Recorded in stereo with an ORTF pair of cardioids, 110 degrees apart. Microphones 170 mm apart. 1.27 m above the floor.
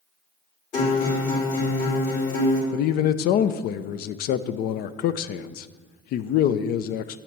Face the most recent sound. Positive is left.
turn(degrees=70)